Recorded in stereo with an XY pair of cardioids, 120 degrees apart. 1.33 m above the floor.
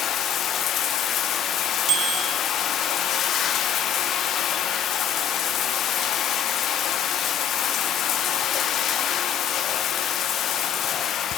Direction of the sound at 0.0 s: 60° left.